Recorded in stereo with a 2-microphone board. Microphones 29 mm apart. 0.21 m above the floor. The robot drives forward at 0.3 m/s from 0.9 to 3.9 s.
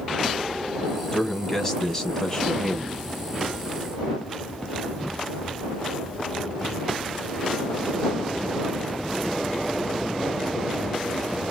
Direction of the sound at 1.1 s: 15° left (ahead or behind).